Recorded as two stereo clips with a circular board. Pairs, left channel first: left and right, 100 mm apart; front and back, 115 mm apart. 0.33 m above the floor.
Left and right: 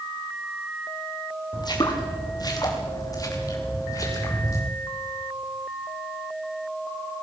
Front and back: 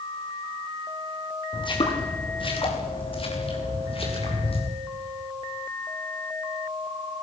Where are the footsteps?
45° left, 5 m; by 4.6 s 35° left, 7.5 m.